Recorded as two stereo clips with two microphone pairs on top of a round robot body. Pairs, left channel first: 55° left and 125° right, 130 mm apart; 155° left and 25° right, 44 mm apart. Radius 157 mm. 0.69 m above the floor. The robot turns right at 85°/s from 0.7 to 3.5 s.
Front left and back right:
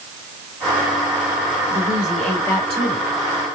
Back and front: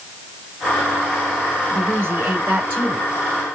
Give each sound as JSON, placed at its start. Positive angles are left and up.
{"t": 1.7, "sound": "a woman speaking", "azimuth_deg": -75, "distance_m": 2.5}